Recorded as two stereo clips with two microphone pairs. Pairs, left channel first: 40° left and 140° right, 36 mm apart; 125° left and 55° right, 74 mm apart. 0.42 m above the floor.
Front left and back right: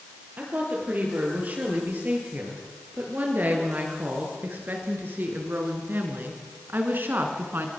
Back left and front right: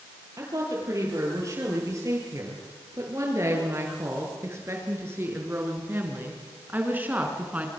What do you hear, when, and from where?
0.4 s a woman speaking: 100° right, 9.5 m; by 7.7 s 125° right, 4.5 m